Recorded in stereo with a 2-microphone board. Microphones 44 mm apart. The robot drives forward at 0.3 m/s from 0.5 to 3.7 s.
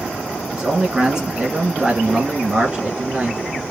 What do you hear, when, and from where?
0.5 s a man speaking: 20° right (ahead or behind), 1.5 m; by 3.6 s 15° right (ahead or behind), 1.6 m